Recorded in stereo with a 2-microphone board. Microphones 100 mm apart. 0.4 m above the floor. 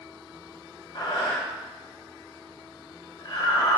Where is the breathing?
50° left (ahead or behind), 1.2 m.